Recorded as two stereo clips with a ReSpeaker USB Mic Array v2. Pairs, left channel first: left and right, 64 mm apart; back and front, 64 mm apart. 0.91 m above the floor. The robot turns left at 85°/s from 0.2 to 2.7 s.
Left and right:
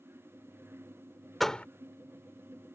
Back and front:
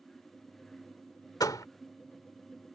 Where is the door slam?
Straight behind; by 1.6 s 155° left.